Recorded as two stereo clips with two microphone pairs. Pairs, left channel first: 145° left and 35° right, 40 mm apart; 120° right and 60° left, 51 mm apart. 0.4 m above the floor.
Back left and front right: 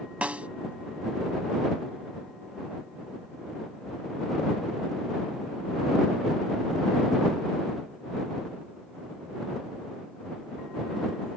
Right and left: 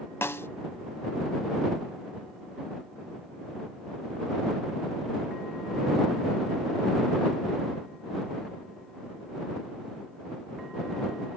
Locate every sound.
0.2 s a snare drum: 90° right